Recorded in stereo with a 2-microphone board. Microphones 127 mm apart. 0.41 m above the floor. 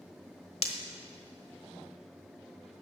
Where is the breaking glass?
55° left (ahead or behind), 1.2 m.